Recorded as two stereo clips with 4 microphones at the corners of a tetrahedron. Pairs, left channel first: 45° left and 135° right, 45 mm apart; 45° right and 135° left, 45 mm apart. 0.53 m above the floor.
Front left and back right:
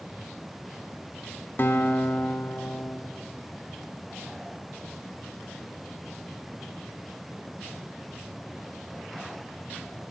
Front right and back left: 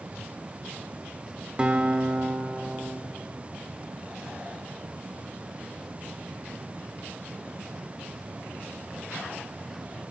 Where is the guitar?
70° left, 0.8 m.